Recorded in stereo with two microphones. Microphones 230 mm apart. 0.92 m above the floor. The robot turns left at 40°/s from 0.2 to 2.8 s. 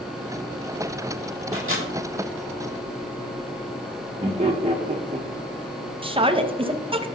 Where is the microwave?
70° right (ahead or behind), 2.5 m; by 1.9 s 55° right (ahead or behind), 2.5 m.